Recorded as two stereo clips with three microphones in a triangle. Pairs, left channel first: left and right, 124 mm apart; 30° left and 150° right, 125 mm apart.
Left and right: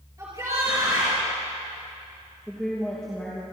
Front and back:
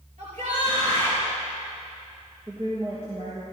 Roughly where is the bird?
No bird in this recording.